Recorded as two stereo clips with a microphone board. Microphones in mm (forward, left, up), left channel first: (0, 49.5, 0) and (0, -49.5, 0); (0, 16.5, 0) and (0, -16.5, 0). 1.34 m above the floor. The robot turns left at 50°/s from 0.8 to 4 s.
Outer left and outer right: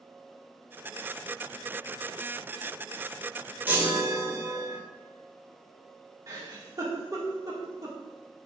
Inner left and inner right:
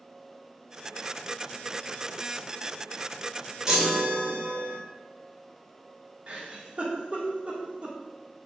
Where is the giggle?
35° right (ahead or behind), 2 m.